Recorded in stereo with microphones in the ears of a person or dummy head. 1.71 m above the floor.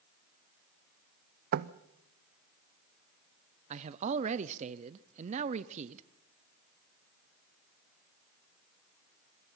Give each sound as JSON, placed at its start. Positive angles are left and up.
{"t": 1.5, "sound": "knocking", "side_deg": -55, "distance_m": 0.7}
{"t": 3.7, "sound": "a man speaking", "side_deg": -40, "distance_m": 0.7}